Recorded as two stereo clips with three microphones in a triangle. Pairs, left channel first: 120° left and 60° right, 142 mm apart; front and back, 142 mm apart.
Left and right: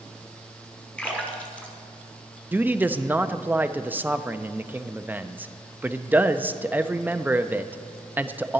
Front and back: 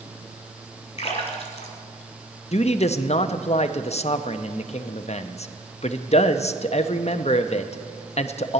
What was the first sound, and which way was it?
A splash, 40° left.